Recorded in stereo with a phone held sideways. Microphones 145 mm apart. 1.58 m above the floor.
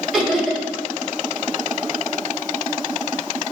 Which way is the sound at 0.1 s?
Centre (ahead or behind).